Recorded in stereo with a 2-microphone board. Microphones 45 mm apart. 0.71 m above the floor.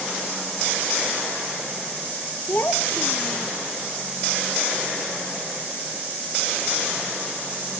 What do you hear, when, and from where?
2.5 s a child speaking: 50° left (ahead or behind); by 3.5 s 45° left (ahead or behind)